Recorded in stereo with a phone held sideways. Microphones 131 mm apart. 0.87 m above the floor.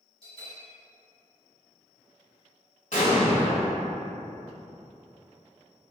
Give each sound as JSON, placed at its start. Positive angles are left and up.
{"t": 0.2, "sound": "a bell", "side_deg": 45, "distance_m": 1.9}
{"t": 2.9, "sound": "an explosion", "side_deg": 70, "distance_m": 1.6}